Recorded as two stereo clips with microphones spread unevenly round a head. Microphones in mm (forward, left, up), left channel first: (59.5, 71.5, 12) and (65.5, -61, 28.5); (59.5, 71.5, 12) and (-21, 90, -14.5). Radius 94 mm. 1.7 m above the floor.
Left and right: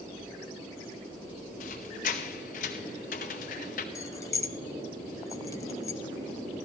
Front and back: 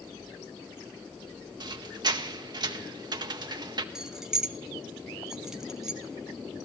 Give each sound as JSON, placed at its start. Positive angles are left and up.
{"t": 1.6, "sound": "a squeak", "azimuth_deg": 130, "distance_m": 0.8}
{"t": 4.0, "sound": "keys jangling", "azimuth_deg": 45, "distance_m": 0.5}